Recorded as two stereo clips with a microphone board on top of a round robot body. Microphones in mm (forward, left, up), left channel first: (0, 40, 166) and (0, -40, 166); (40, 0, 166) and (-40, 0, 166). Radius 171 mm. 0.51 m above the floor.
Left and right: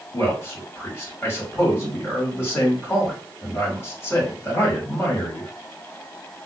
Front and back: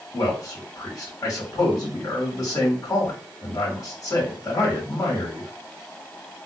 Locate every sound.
0.1 s a man speaking: 35° left, 2 m